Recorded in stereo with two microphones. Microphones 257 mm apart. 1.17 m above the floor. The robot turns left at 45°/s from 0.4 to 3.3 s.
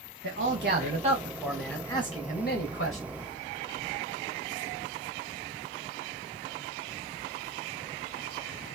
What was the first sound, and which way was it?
A man speaking, 125° right.